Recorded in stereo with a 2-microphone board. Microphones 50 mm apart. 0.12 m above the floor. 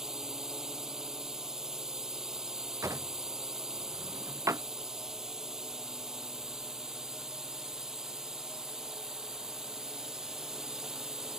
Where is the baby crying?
I don't hear a baby crying.